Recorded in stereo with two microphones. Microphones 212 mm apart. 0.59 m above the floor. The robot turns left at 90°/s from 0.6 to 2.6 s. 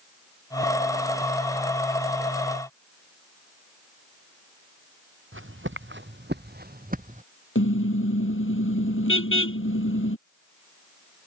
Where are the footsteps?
70° right (ahead or behind); by 7.2 s 35° right (ahead or behind).